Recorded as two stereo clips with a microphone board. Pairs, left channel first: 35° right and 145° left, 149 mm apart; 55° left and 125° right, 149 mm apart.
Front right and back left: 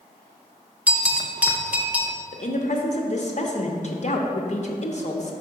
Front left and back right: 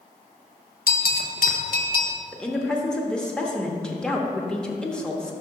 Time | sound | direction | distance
0.9 | a bell | 65° left | 0.6 m
2.3 | a woman speaking | 25° right | 0.8 m